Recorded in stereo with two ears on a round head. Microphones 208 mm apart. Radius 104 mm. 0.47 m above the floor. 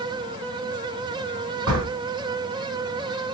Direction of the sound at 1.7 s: 60° right (ahead or behind).